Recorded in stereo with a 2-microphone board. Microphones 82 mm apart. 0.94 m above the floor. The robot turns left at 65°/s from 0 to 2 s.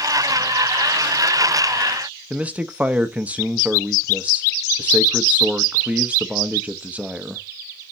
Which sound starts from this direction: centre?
A man speaking, at 2.3 s.